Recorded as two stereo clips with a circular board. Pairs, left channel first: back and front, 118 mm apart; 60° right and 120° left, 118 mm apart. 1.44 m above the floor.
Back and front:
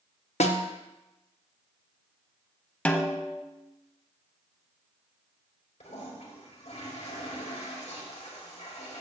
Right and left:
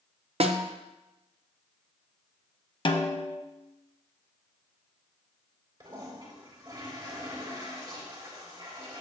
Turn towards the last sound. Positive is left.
turn(degrees=175)